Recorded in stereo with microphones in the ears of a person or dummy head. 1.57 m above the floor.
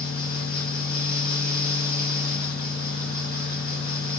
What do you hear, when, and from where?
0.0 s a fan: 20° left (ahead or behind), 1.5 m